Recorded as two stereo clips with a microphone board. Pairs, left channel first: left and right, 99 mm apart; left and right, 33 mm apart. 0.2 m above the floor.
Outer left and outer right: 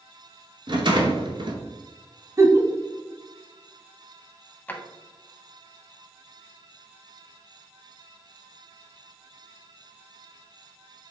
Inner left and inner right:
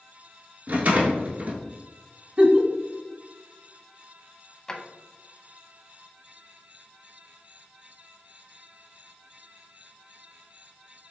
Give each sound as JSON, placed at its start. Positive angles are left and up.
{"t": 0.7, "sound": "a rattle", "side_deg": -55, "distance_m": 0.9}
{"t": 2.4, "sound": "a giggle", "side_deg": -30, "distance_m": 0.7}
{"t": 4.7, "sound": "a drawer", "side_deg": 20, "distance_m": 0.7}